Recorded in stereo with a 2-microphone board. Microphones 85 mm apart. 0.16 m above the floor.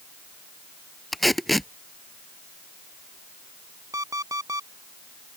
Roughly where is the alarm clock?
Right.